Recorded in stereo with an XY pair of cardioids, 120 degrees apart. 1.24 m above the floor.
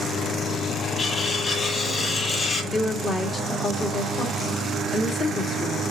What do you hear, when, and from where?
1.0 s cutlery clinking: 30° left, 5.5 m
2.7 s a woman speaking: 30° left, 2 m